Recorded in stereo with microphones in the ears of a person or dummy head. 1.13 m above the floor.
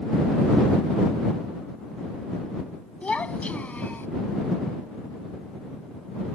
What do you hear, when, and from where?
3.0 s a child speaking: 5° left (ahead or behind); by 4.1 s 10° left (ahead or behind)